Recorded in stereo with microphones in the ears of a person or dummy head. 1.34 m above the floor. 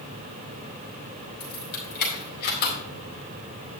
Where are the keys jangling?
60° left (ahead or behind), 5 m; by 2.8 s 65° left (ahead or behind), 4 m.